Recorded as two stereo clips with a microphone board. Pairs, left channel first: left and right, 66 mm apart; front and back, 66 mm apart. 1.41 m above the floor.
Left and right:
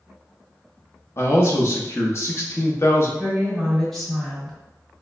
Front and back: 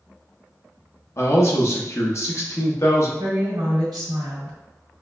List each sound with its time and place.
1.2 s a man speaking: 40° left, 0.9 m
3.2 s a woman speaking: 175° left, 1.7 m